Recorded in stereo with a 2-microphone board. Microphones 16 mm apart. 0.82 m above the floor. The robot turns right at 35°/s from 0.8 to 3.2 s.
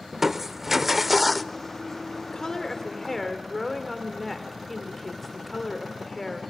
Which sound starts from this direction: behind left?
A woman speaking, at 2.3 s.